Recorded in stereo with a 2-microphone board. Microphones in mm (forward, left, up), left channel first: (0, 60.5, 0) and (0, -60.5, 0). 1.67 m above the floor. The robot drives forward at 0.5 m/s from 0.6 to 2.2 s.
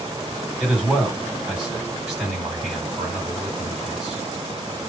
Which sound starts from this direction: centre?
A man speaking, at 0.6 s.